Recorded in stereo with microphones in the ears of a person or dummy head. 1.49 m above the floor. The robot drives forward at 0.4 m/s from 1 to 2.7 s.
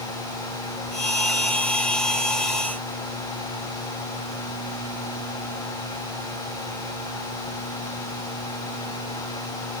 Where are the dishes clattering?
No dishes clattering in this recording.